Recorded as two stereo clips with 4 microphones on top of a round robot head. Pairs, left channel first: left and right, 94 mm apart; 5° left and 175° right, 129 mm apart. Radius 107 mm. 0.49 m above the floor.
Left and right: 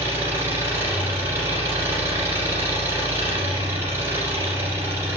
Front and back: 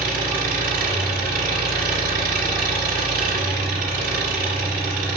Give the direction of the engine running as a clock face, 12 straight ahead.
5 o'clock.